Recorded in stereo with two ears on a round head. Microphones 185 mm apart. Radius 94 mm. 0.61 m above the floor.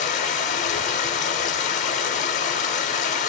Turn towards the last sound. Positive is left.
turn(degrees=35)  # may be behind; listen again after turning